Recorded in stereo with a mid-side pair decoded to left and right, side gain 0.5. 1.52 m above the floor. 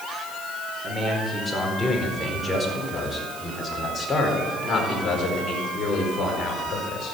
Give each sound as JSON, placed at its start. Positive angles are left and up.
{"t": 0.8, "sound": "a man speaking", "azimuth_deg": -5, "distance_m": 5.0}